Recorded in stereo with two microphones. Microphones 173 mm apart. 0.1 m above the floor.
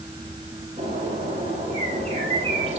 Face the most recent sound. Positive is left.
turn(degrees=-35)  # may be behind; listen again after turning